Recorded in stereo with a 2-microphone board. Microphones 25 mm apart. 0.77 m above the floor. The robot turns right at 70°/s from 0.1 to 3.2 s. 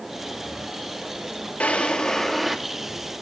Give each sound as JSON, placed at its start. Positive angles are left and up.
{"t": 1.6, "sound": "a drawer", "azimuth_deg": 115, "distance_m": 0.6}